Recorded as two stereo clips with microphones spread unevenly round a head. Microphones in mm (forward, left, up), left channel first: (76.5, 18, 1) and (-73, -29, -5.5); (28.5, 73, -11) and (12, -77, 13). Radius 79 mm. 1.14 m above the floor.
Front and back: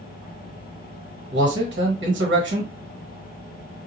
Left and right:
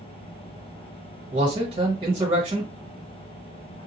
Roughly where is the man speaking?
Behind right.